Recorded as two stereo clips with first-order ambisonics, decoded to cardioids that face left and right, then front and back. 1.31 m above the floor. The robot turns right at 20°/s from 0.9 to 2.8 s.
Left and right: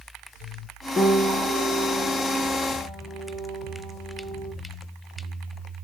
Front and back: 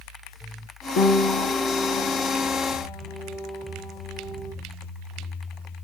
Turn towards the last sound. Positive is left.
turn(degrees=35)